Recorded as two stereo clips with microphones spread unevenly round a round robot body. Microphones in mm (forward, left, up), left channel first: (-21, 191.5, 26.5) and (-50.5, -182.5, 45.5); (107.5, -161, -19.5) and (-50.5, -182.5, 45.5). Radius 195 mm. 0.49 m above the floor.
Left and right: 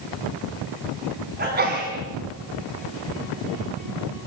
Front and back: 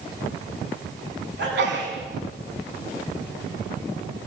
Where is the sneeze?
160° right, 4 m.